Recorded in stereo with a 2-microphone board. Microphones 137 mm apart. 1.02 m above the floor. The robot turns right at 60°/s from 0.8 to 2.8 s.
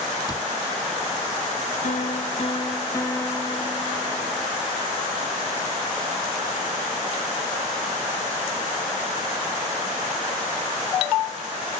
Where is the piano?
100° left; by 4.5 s 155° left.